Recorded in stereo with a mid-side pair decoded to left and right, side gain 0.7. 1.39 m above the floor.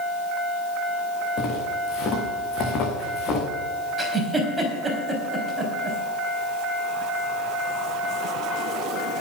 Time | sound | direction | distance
1.4 | footsteps | 45° left | 5 m
4.0 | a giggle | 10° right | 4 m